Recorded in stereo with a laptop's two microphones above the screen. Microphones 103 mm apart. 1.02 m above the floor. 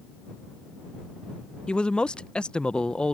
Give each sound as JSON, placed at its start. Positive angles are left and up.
{"t": 1.7, "sound": "a man speaking", "side_deg": 10}